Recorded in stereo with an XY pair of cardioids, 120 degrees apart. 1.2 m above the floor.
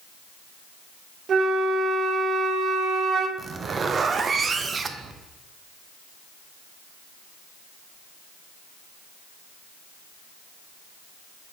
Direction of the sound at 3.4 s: 35° right.